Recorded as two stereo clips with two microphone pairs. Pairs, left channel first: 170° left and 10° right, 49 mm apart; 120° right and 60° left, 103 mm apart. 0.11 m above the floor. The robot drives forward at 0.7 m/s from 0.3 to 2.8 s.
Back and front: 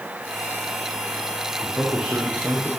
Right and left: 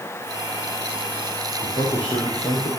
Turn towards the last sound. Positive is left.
turn(degrees=-105)